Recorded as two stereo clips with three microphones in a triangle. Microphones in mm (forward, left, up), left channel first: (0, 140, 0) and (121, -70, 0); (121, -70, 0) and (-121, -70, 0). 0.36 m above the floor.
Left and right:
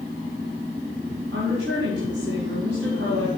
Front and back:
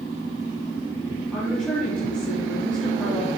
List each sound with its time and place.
1.3 s a woman speaking: 85° right, 2.5 m